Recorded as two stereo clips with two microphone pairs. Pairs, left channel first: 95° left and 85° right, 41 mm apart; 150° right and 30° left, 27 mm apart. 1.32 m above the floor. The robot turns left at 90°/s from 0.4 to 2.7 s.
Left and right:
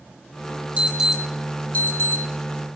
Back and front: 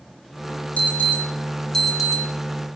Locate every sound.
0.8 s an alarm: 135° right, 3 m; by 2.2 s 95° left, 3 m